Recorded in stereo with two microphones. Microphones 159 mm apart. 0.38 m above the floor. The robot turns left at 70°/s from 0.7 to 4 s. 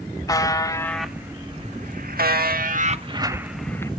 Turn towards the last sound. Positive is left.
turn(degrees=150)